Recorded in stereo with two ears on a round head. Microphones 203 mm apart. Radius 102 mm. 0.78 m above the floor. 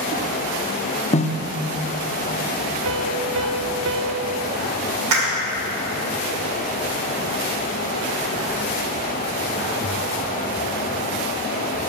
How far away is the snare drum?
About 0.7 m.